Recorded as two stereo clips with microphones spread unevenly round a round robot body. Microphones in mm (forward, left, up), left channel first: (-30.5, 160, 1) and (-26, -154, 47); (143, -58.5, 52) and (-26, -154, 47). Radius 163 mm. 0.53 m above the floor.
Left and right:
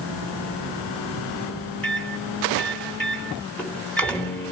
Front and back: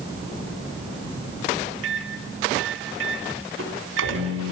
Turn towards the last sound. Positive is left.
turn(degrees=175)